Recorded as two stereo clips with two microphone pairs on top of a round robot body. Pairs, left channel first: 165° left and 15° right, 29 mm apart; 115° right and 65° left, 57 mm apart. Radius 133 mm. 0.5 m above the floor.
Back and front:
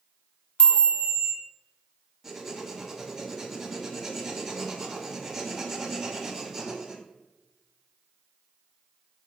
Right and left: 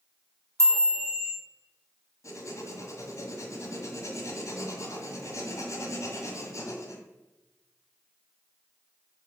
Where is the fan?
I don't hear a fan.